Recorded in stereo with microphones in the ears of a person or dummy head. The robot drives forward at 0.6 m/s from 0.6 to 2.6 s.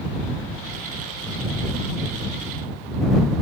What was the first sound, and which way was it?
Only background noise.